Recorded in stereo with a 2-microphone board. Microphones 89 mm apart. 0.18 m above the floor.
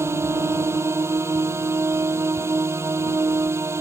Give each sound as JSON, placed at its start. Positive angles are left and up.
{"t": 0.0, "sound": "a drone", "side_deg": -30}